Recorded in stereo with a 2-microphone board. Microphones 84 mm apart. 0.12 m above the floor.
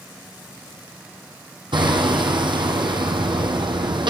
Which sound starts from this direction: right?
Hammering, at 1.7 s.